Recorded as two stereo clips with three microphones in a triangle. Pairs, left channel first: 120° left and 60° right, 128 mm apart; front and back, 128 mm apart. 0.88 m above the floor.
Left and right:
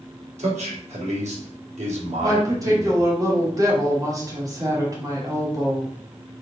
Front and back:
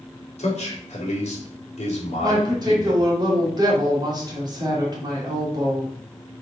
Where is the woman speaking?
125° right, 3 m.